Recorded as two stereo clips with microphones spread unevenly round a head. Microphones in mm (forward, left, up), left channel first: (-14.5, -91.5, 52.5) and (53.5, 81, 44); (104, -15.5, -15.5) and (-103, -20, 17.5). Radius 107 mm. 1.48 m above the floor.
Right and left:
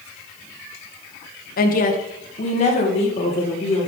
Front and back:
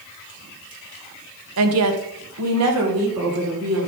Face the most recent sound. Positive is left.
turn(degrees=-170)